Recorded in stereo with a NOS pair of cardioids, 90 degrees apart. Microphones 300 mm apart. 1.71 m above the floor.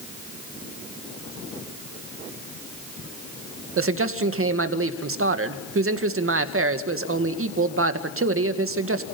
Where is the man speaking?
45° right, 2 m.